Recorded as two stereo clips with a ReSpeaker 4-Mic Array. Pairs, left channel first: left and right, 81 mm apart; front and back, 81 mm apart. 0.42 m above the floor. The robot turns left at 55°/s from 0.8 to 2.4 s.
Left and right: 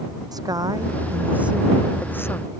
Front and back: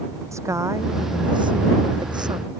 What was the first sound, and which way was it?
A woman speaking, 130° right.